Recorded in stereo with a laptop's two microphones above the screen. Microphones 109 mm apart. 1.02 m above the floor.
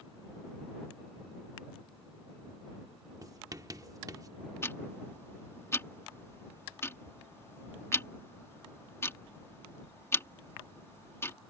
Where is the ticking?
25° left (ahead or behind).